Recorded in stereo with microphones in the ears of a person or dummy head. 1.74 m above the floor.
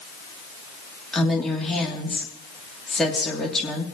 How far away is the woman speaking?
About 2.5 m.